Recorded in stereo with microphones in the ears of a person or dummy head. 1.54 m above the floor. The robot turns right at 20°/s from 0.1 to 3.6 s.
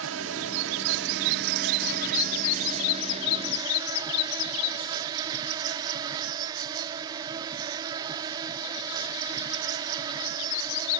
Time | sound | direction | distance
0.0 | an insect | 90° right | ?